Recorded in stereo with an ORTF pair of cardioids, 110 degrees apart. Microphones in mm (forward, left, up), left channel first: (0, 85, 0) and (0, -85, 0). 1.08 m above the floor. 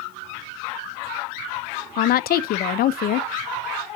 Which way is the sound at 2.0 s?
60° left.